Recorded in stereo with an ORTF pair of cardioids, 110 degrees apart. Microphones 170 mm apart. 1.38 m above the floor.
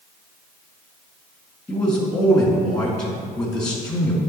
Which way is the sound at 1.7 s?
5° left.